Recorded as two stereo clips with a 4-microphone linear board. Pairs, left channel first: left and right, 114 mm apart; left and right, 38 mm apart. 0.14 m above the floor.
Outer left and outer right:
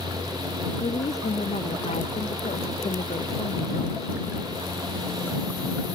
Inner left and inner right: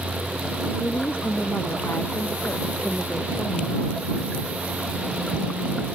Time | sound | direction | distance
0.8 | a woman speaking | 70° left (ahead or behind) | ?